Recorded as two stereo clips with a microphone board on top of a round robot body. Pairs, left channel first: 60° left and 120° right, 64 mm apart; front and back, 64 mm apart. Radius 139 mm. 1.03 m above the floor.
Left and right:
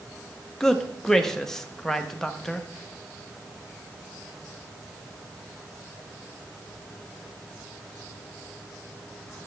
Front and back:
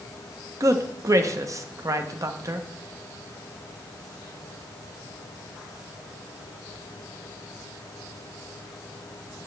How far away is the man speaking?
About 0.9 m.